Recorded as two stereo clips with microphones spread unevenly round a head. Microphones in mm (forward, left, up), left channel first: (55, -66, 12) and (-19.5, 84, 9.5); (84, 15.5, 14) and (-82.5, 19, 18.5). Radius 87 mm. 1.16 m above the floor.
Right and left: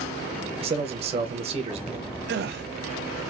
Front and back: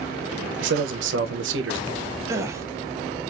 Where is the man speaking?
175° left, 0.8 m.